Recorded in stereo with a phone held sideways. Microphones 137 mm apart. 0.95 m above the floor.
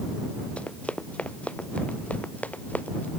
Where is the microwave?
I don't hear a microwave.